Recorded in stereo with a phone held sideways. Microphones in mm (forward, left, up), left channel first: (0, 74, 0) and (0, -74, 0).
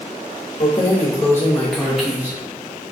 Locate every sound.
0.6 s keys jangling: 40° left (ahead or behind), 0.9 m; by 2.9 s 20° right (ahead or behind), 1.3 m